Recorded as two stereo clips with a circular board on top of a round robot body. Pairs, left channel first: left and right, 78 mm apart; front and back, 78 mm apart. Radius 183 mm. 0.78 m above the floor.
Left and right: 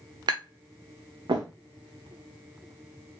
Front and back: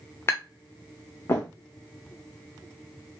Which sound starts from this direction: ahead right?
Tapping, at 0.3 s.